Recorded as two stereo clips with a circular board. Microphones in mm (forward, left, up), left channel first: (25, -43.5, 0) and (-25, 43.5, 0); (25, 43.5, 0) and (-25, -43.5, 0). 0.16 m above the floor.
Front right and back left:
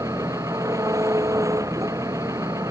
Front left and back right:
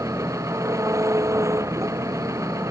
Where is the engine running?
Straight behind.